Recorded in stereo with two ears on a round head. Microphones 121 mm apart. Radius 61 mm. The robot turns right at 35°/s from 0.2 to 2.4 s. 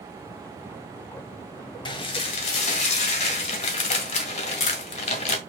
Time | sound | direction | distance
1.9 | dishes clattering | 35° left (ahead or behind) | 1.7 m